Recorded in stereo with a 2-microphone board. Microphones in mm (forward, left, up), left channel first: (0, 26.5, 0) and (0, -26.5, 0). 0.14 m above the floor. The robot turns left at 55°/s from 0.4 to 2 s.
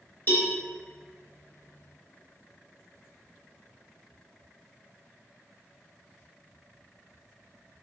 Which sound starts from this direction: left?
A cowbell, at 0.3 s.